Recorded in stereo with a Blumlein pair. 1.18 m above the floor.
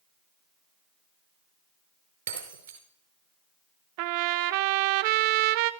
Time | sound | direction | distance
2.3 | breaking glass | 65° right | 5 m
4.0 | a trumpet | 45° right | 0.9 m